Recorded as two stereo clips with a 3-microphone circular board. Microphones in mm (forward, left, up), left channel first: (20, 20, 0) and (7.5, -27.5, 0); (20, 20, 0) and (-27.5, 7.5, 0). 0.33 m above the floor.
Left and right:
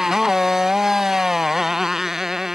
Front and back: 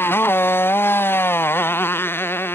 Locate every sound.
0.0 s a motorcycle: 25° right